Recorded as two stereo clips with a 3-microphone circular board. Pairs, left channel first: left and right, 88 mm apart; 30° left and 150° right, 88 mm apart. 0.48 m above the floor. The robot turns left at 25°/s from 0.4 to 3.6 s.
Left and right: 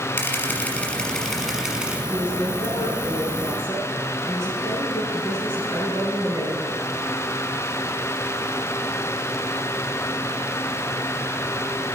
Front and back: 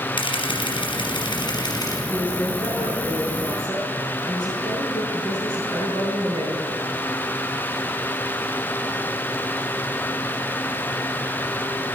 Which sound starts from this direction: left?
A woman speaking, at 2.1 s.